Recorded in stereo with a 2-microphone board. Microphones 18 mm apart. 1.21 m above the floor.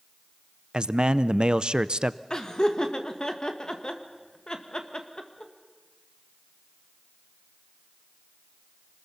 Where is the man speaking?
55° right (ahead or behind), 0.6 m.